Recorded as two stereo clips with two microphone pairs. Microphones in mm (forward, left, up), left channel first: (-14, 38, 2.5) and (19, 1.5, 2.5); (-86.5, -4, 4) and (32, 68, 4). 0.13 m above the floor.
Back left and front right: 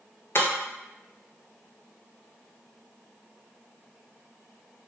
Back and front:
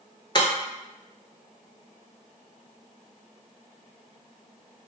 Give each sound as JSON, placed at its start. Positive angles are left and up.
{"t": 0.3, "sound": "breaking glass", "azimuth_deg": 160, "distance_m": 0.9}